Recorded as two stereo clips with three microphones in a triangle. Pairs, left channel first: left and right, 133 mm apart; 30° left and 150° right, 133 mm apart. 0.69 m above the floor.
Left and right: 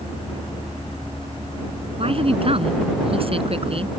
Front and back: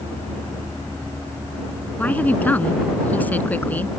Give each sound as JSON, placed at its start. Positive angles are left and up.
{"t": 2.0, "sound": "a woman speaking", "azimuth_deg": -45}